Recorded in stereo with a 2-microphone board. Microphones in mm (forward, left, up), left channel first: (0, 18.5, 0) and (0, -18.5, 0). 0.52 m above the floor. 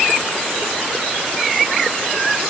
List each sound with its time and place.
Only background noise.